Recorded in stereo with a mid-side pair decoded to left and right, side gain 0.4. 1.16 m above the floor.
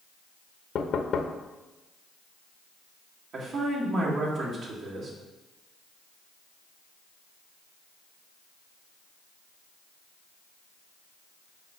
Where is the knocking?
65° left, 0.8 m.